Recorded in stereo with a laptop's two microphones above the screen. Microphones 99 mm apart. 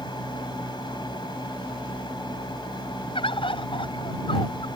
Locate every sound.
0.0 s a fan: 50° left (ahead or behind)
3.1 s a bird: 65° left (ahead or behind)